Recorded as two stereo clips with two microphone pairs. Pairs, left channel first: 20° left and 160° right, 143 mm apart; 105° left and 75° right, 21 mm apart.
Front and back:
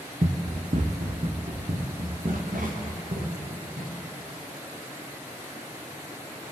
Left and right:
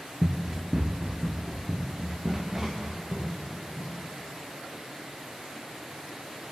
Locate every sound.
0.2 s running footsteps: 130° right, 1.1 m; by 4.0 s 150° right, 3.5 m